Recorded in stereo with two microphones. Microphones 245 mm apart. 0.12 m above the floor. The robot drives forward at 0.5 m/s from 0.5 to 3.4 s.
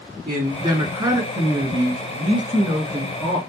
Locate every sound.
0.3 s a man speaking: 15° right (ahead or behind), 1.3 m